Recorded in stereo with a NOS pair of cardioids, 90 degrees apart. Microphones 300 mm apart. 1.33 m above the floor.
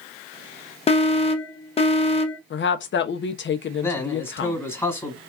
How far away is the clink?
I don't hear a clink.